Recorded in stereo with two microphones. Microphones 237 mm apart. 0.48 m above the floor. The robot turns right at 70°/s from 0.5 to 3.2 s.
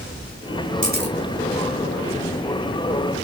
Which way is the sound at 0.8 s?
30° right (ahead or behind).